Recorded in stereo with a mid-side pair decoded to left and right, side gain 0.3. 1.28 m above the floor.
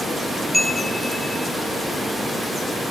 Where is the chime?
10° left, 1.1 m.